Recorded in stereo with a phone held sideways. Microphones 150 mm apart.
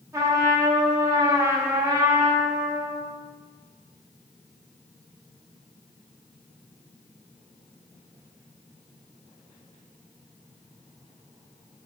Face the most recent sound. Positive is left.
turn(degrees=-20)  # may be behind; listen again after turning